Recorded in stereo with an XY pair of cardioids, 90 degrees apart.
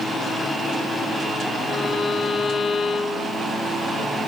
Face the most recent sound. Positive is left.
turn(degrees=55)